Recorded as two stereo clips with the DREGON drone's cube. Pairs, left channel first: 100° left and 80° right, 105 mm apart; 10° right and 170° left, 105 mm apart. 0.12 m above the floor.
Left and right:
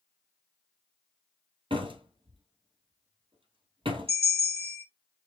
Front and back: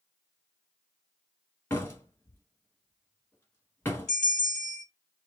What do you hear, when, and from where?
1.7 s a door slam: 75° right, 1.6 m
4.1 s a bell: 95° right, 3 m